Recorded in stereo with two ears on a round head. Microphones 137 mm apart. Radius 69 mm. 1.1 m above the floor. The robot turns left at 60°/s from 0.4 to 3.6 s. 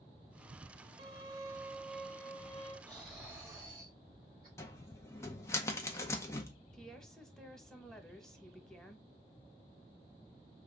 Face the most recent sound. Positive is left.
turn(degrees=5)  # may be behind; listen again after turning